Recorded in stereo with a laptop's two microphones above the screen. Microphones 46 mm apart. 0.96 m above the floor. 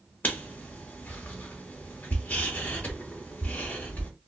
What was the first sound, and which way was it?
Writing, 40° left (ahead or behind).